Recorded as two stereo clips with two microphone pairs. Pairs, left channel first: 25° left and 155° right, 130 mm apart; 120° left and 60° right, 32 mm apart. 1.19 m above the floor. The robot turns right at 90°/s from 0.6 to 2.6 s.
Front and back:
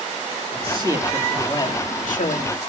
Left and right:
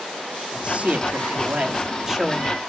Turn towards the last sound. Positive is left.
turn(degrees=60)